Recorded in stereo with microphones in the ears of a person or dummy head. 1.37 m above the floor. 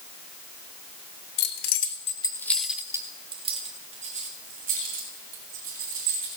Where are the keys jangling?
65° left (ahead or behind), 0.7 m; by 6.3 s 50° right (ahead or behind), 2.5 m.